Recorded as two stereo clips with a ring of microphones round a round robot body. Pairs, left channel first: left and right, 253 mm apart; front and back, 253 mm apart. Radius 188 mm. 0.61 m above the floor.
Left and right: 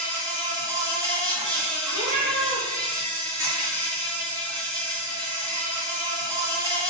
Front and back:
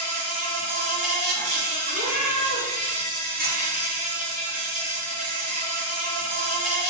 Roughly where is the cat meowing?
Right.